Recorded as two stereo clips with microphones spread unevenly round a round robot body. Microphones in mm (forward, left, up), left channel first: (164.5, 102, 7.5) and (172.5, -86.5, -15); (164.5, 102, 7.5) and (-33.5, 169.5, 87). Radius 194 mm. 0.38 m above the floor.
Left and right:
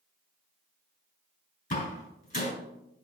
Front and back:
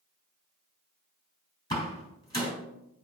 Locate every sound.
1.7 s a door slam: 50° left, 3.5 m